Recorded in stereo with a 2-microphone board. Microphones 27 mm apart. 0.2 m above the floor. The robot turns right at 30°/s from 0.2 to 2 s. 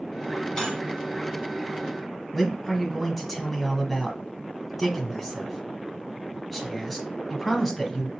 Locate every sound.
0.6 s cutlery clinking: 20° left (ahead or behind), 0.9 m; by 0.8 s 10° left (ahead or behind), 0.9 m
2.3 s a man speaking: 5° left (ahead or behind), 1.1 m